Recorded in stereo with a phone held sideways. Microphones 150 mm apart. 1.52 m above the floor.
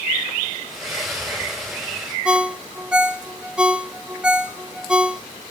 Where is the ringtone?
5° right (ahead or behind), 0.6 m.